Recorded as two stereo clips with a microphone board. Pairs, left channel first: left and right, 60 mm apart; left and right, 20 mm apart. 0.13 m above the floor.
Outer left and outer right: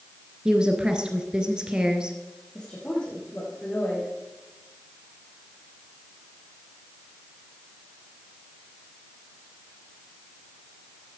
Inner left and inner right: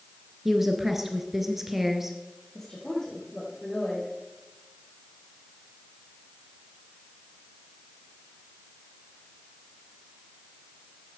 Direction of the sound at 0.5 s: 15° right (ahead or behind).